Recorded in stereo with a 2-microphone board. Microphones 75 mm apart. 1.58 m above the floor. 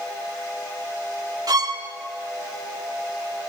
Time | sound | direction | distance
1.5 | a violin | 55° right (ahead or behind) | 1.5 m